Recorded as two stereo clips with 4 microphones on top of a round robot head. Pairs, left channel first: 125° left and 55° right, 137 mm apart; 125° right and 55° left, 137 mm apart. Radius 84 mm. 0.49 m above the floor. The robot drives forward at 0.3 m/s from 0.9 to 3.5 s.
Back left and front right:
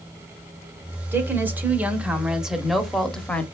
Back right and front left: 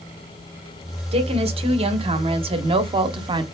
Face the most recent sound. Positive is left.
turn(degrees=55)